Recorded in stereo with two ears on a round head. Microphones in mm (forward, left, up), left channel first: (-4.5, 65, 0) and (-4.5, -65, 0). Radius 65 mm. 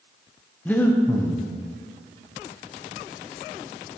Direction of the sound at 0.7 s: 10° left (ahead or behind).